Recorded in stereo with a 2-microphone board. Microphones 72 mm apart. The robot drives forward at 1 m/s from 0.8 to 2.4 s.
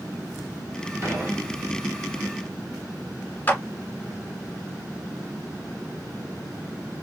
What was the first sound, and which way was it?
Dishes clattering, 45° right (ahead or behind).